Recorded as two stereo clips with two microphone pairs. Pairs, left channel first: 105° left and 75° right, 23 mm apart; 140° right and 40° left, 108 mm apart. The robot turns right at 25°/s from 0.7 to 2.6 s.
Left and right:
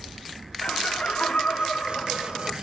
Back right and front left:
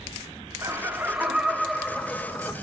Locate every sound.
0.6 s laughter: 105° left, 2.5 m; by 2.5 s 150° left, 2.5 m